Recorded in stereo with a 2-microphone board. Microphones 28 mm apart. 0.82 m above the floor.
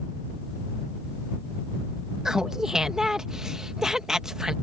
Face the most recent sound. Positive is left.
turn(degrees=-20)  # may be behind; listen again after turning